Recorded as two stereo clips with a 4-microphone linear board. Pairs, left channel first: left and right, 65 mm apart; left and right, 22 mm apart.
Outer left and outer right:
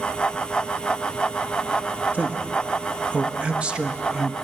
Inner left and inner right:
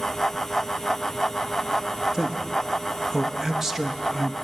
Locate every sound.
2.1 s a man speaking: 25° right (ahead or behind), 1.3 m; by 4.3 s 10° right (ahead or behind), 1.2 m